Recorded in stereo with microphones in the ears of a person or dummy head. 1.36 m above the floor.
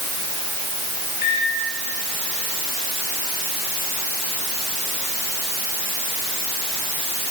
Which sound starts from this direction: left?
A microwave, at 1.2 s.